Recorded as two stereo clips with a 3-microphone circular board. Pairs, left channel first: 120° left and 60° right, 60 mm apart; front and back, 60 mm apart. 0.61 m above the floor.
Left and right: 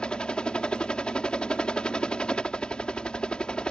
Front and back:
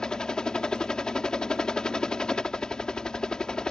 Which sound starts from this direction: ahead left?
A helicopter, at 0.0 s.